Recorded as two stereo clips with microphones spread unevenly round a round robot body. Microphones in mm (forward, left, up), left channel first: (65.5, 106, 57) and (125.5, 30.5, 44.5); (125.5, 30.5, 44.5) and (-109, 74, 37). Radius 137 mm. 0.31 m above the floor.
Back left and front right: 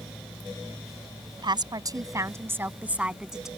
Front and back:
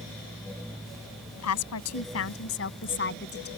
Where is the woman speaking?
15° right; by 3.5 s 35° left.